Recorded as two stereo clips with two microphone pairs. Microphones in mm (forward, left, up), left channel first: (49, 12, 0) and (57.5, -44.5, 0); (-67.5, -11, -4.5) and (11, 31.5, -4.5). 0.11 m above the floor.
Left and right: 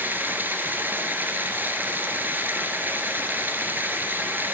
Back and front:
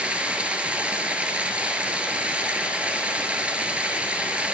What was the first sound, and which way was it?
Running water, 45° right.